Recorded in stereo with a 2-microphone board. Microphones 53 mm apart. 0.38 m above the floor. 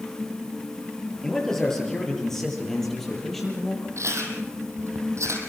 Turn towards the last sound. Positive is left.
turn(degrees=-75)  # may be behind; listen again after turning